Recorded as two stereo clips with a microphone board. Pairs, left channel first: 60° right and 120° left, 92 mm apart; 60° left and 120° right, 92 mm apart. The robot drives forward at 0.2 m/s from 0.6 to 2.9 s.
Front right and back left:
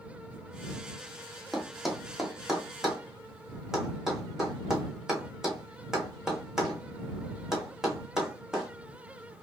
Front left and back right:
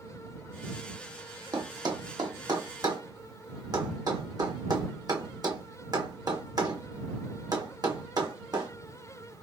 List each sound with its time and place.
1.5 s a thud: 150° right, 0.9 m; by 9.4 s 155° right, 1.2 m